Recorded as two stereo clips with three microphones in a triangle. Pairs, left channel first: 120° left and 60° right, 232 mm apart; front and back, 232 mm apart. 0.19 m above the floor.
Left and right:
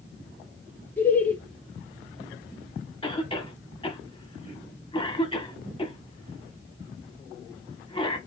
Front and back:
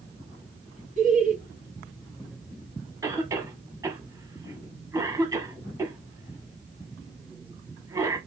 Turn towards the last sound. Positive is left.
turn(degrees=125)